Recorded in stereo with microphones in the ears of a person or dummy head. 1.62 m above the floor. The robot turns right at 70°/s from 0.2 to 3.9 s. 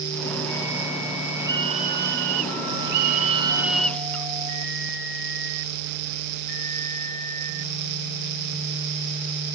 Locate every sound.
1.4 s a scream: 165° right; by 4.3 s 10° left